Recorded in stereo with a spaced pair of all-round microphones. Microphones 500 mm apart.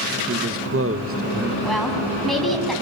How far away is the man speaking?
About 1.0 m.